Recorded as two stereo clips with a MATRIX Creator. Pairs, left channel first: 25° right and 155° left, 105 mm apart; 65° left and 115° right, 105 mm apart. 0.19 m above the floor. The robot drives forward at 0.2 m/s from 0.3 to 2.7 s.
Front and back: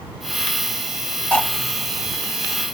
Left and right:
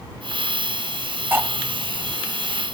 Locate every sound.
1.3 s cutlery clinking: 80° right, 0.6 m; by 1.5 s 85° right, 0.6 m